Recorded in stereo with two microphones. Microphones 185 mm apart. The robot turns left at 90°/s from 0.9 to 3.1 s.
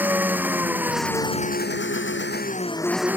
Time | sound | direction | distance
0.0 | an engine running | 170° right | ?